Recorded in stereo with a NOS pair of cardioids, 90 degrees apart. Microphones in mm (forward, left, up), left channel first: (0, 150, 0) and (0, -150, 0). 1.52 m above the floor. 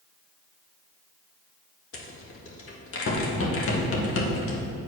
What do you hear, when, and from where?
1.9 s a rattle: 45° left, 1.9 m